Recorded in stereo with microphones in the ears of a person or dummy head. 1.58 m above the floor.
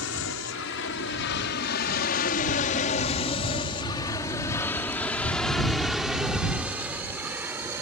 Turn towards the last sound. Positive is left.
turn(degrees=-15)  # may be behind; listen again after turning